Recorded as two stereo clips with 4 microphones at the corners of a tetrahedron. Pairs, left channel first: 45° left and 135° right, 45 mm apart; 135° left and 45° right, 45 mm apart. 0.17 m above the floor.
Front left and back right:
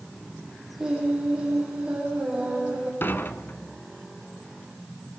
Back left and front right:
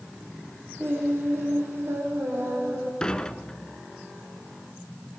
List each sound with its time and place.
0.8 s singing: 65° right, 8.5 m
3.0 s dishes clattering: 65° left, 1.2 m